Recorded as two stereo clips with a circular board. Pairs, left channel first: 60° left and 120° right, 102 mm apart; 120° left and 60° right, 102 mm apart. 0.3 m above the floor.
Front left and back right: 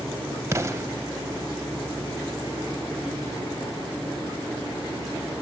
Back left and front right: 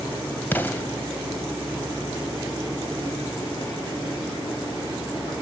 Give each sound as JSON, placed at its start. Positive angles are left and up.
{"t": 0.5, "sound": "an explosion", "azimuth_deg": -175, "distance_m": 0.6}